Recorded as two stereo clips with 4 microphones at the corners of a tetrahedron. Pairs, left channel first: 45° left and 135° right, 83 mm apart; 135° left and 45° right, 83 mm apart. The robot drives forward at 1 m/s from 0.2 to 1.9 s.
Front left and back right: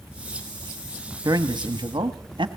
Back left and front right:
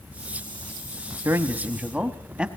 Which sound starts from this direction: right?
A man speaking, at 1.2 s.